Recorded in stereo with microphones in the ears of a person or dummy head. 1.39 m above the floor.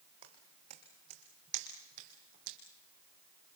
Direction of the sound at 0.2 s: 35° right (ahead or behind).